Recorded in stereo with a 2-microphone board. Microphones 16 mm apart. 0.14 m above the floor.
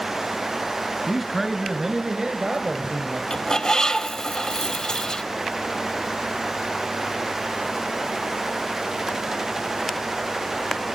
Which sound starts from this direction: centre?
A man speaking, at 1.1 s.